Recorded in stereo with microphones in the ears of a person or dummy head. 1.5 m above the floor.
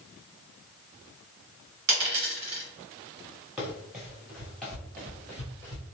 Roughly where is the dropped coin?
Right.